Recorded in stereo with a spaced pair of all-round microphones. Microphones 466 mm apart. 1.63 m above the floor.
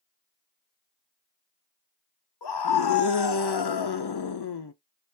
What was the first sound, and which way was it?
A scream, 60° left (ahead or behind).